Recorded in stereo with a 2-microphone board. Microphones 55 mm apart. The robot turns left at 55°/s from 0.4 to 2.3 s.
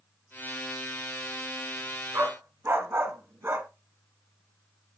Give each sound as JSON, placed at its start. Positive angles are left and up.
{"t": 2.1, "sound": "a dog barking", "side_deg": -55, "distance_m": 1.7}